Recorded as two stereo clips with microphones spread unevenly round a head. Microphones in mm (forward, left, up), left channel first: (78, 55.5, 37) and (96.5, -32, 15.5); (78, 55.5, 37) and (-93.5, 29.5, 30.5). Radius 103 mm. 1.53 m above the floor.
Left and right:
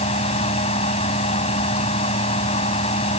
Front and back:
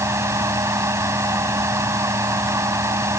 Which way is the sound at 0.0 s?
115° left.